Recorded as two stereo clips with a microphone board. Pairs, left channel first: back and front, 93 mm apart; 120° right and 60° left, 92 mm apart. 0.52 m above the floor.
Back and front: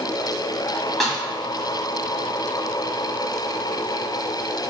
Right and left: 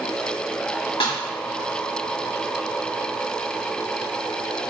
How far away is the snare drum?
About 1.1 m.